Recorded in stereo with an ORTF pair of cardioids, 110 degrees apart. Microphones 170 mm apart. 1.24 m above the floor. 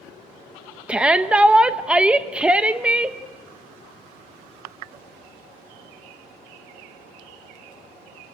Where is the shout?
5° right, 1.0 m.